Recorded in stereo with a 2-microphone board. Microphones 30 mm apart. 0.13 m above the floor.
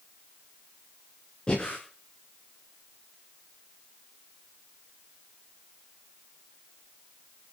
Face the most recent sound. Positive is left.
turn(degrees=25)  # may be behind; listen again after turning